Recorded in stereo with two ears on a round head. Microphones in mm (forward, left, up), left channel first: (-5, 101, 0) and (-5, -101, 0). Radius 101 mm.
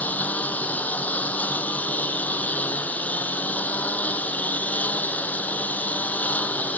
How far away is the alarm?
I don't hear an alarm.